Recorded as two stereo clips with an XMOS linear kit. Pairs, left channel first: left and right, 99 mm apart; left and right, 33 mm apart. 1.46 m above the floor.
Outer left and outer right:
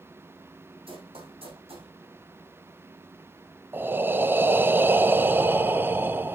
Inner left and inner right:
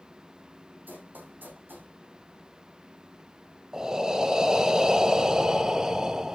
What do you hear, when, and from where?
0.9 s running footsteps: 70° right (ahead or behind), 5 m; by 1.9 s 75° right (ahead or behind), 5.5 m
3.7 s breathing: 20° right (ahead or behind), 0.7 m